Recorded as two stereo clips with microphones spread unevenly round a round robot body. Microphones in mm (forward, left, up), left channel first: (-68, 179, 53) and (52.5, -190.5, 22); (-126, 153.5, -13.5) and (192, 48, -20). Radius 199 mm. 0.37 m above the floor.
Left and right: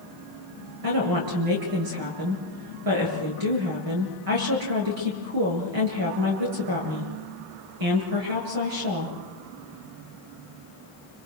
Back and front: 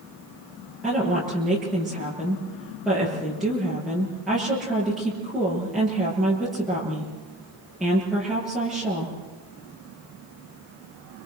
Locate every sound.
0.8 s a woman speaking: 110° right, 7.5 m